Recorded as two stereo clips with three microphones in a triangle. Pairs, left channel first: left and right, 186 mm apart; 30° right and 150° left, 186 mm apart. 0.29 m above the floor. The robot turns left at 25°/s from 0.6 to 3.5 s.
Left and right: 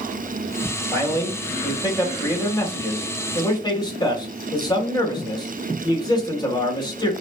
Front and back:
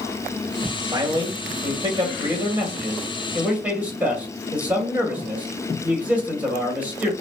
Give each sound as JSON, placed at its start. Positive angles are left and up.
{"t": 0.9, "sound": "a man speaking", "azimuth_deg": 145, "distance_m": 1.6}